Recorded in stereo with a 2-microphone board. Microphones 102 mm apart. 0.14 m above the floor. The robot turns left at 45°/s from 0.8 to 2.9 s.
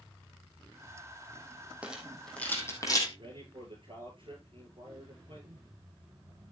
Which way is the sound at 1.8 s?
10° right (ahead or behind).